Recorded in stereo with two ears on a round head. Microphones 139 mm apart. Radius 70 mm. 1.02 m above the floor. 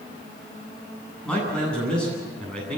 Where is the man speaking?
5° left (ahead or behind), 9.5 m.